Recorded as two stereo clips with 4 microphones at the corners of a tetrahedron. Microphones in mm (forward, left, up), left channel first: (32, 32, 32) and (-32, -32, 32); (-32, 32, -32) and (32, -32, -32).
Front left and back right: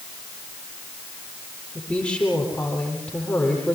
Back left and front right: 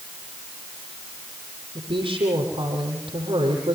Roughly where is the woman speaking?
Ahead right.